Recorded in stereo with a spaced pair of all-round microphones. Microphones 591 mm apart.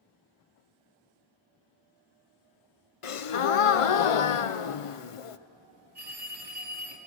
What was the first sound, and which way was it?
A gasp, 60° left (ahead or behind).